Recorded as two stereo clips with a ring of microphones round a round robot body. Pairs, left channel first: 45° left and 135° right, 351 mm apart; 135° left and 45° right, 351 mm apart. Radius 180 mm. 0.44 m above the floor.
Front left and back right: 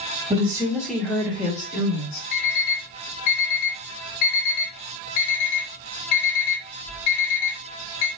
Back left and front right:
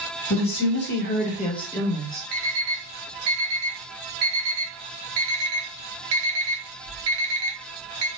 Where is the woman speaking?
155° left, 1.6 m; by 2.2 s 45° left, 1.5 m.